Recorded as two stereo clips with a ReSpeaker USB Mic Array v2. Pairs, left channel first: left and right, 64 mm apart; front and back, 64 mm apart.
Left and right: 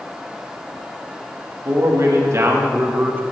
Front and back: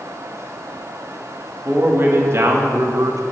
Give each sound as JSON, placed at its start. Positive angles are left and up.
{"t": 1.6, "sound": "a man speaking", "azimuth_deg": -125, "distance_m": 1.9}